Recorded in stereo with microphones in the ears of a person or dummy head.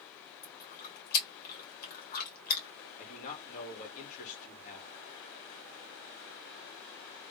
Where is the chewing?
50° left (ahead or behind), 2.5 m.